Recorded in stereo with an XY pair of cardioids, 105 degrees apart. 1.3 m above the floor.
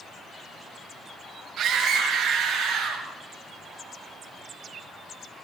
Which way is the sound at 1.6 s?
65° right.